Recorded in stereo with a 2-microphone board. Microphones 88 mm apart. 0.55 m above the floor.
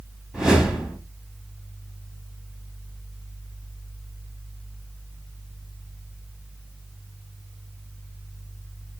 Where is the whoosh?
5° right (ahead or behind), 0.8 m.